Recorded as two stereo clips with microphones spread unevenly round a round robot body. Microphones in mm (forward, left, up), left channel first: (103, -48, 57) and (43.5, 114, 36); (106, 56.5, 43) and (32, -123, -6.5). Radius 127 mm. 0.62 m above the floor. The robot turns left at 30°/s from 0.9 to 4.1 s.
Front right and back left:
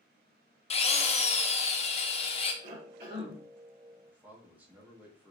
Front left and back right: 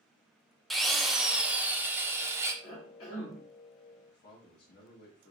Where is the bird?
I don't hear a bird.